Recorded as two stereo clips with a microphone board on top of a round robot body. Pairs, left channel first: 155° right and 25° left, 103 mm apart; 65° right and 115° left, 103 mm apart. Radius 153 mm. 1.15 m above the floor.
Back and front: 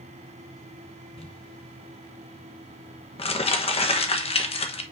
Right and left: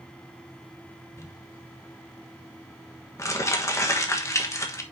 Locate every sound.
1.2 s crumpling: 130° right, 1.3 m